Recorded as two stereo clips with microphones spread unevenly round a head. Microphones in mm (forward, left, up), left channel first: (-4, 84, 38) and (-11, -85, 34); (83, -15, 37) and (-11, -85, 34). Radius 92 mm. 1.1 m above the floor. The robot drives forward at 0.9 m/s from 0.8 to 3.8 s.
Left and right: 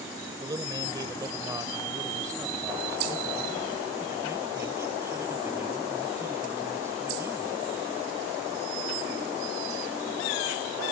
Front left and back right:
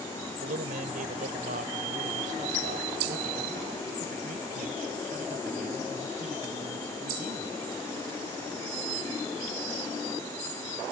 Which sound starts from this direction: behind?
A man speaking, at 0.4 s.